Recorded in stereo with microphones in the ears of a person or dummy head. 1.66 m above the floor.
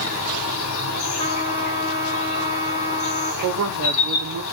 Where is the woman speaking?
65° right (ahead or behind), 0.7 m.